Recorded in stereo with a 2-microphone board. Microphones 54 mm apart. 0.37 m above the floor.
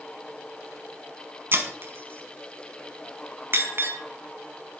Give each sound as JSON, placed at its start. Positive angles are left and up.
{"t": 1.5, "sound": "breaking glass", "side_deg": -50, "distance_m": 0.9}